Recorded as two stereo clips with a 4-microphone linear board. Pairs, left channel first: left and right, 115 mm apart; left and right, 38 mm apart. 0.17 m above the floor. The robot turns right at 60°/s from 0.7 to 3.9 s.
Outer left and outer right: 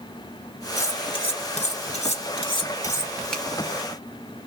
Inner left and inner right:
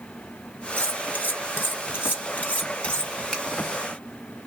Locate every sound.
0.8 s cutlery clinking: 25° left (ahead or behind), 2.5 m; by 3.1 s 10° left (ahead or behind), 2.5 m
3.3 s a finger snap: 5° left (ahead or behind), 1.2 m